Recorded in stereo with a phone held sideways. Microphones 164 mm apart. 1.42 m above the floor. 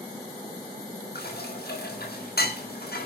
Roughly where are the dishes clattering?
Left.